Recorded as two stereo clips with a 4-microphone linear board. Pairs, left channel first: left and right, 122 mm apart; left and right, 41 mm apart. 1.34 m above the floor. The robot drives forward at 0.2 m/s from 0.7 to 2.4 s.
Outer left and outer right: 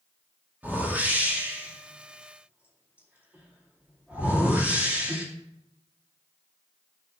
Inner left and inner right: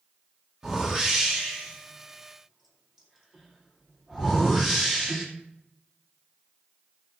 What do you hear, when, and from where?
0.6 s a whoosh: 15° right (ahead or behind), 2 m